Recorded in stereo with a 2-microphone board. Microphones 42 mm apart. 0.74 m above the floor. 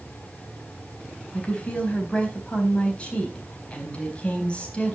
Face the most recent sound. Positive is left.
turn(degrees=30)  # may be behind; listen again after turning